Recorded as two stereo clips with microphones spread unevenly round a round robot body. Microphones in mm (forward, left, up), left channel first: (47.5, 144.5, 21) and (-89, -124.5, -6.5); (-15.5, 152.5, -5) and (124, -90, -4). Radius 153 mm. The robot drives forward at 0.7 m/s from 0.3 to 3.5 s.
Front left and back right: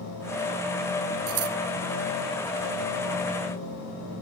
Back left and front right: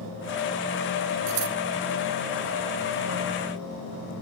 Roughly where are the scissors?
Right.